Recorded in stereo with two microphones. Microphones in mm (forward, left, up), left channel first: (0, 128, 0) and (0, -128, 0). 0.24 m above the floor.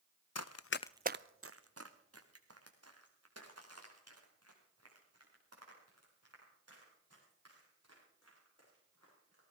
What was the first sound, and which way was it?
Running footsteps, 80° left.